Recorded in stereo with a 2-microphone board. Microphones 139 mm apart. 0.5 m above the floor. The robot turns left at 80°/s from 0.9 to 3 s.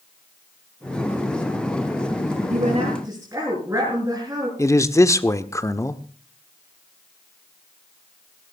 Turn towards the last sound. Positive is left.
turn(degrees=20)  # may be behind; listen again after turning